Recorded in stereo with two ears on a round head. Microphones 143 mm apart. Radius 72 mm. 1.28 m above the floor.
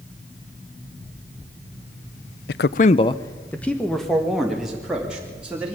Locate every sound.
2.5 s a man speaking: 75° left (ahead or behind), 0.5 m; by 5.8 s 5° right (ahead or behind), 3.5 m